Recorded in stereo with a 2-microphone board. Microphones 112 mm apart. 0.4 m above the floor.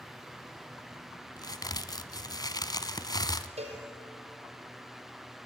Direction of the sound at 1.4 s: 35° left (ahead or behind).